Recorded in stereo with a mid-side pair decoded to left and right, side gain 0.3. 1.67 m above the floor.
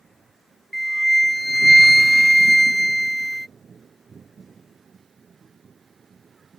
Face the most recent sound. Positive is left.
turn(degrees=0)